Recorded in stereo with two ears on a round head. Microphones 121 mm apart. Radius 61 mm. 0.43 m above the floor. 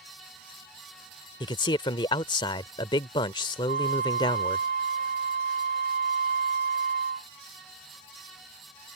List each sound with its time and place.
1.4 s a man speaking: 35° left (ahead or behind)
3.7 s a flute: 70° right (ahead or behind)